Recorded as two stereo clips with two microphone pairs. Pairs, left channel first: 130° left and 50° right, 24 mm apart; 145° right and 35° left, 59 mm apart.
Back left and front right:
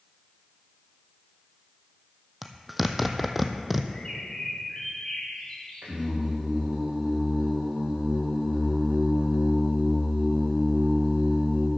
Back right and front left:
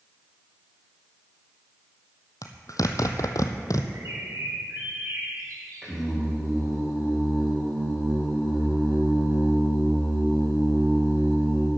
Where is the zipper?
135° right, 0.9 m.